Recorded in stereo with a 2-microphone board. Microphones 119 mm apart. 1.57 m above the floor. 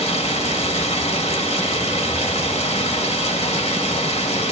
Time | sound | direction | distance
0.0 | running water | 65° left (ahead or behind) | 1.5 m